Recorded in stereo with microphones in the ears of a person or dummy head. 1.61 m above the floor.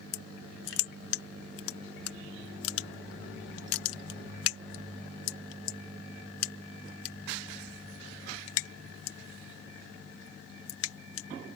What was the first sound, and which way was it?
Crushing, 90° left.